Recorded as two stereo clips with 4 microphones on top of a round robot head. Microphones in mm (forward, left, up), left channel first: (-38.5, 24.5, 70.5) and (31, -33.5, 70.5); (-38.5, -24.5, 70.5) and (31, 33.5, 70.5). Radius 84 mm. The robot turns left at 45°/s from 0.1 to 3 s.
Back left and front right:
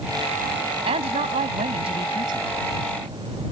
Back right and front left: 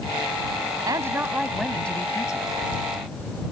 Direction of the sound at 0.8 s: 15° right.